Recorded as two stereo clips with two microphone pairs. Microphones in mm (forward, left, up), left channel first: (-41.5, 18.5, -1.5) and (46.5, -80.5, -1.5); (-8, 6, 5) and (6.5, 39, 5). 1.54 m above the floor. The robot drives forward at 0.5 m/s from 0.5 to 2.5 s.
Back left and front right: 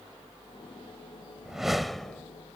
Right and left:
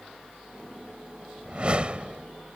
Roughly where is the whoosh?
Ahead left.